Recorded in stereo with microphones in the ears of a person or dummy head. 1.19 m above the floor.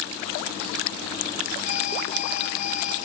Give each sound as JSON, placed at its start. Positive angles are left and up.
{"t": 1.6, "sound": "an alarm", "side_deg": 55, "distance_m": 6.5}